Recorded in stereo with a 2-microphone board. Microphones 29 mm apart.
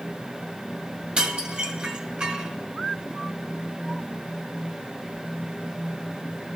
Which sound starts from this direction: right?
Dishes clattering, at 1.2 s.